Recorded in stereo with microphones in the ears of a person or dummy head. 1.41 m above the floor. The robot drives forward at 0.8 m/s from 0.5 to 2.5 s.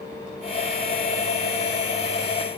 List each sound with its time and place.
Only background noise.